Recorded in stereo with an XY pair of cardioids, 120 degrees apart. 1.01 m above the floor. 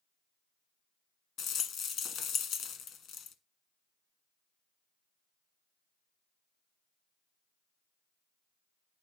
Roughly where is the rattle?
Ahead left.